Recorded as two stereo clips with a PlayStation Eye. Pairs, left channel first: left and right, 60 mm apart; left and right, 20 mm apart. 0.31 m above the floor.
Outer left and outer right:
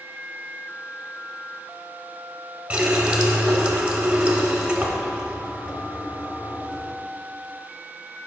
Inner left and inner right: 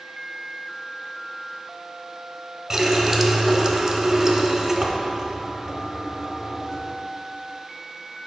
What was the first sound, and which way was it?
A running tap, 20° right (ahead or behind).